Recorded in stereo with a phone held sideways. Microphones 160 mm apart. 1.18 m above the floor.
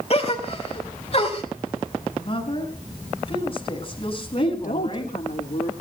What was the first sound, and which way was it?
A gasp, 45° left (ahead or behind).